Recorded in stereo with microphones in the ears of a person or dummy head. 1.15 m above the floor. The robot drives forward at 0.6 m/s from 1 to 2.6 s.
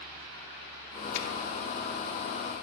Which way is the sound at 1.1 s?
65° left (ahead or behind).